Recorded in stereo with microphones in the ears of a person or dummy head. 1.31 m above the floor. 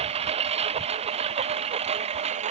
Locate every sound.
0.0 s a lawn mower: 35° right (ahead or behind)